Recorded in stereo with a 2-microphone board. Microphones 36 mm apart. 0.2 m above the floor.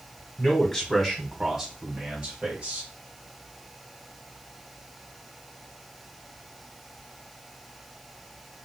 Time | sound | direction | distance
0.4 | a man speaking | 15° left (ahead or behind) | 1.2 m